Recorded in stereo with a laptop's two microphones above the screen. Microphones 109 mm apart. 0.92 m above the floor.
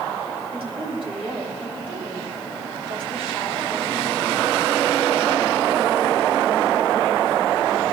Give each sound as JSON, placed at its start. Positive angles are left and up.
{"t": 0.5, "sound": "a woman speaking", "side_deg": -65, "distance_m": 4.5}